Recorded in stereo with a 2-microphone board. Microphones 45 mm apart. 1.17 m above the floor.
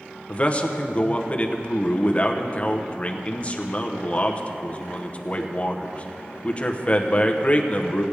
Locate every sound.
0.3 s a man speaking: 30° left (ahead or behind), 0.8 m